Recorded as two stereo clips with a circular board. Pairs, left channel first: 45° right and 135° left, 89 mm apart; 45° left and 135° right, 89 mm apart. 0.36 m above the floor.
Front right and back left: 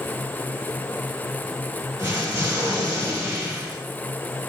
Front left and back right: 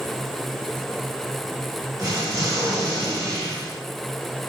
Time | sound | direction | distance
2.0 | an explosion | 170° right | 1.8 m